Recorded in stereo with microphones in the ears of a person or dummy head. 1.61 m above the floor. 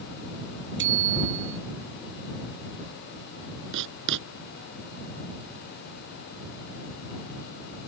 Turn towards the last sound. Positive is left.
turn(degrees=-65)  # may be behind; listen again after turning